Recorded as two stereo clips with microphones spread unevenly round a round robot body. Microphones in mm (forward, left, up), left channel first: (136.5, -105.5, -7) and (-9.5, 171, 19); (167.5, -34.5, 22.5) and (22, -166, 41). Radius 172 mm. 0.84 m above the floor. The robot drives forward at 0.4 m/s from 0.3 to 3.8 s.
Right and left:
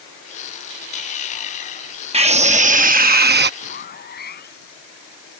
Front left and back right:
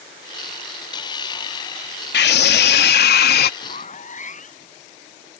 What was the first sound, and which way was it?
A scream, 45° left.